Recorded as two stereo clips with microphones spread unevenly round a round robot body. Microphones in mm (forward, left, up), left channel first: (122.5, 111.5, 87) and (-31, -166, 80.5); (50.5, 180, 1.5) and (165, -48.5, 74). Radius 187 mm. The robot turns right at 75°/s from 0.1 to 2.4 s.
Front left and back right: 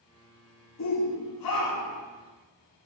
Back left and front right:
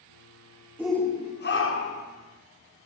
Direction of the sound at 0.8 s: 25° left.